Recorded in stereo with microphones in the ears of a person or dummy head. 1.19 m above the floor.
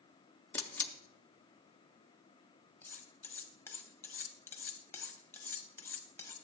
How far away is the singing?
I don't hear singing.